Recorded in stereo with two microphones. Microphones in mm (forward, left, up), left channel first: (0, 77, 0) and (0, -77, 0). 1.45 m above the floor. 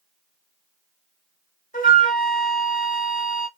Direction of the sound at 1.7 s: 60° left (ahead or behind).